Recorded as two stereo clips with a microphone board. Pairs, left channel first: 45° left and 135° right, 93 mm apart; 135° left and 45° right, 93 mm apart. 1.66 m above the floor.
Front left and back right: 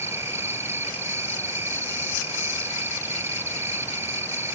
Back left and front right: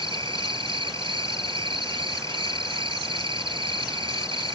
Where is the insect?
70° right.